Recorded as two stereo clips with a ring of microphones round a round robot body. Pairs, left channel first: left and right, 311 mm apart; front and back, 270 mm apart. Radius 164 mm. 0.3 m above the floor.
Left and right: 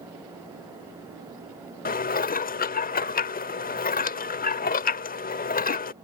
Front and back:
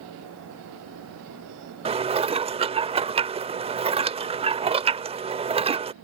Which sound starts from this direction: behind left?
Dishes clattering, at 1.9 s.